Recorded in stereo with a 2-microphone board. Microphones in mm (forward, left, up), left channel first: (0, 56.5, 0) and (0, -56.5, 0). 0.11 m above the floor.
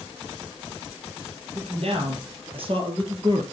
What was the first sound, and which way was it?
A man speaking, 65° right (ahead or behind).